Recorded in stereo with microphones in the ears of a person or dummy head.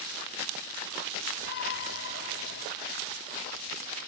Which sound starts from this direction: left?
A shout, at 1.4 s.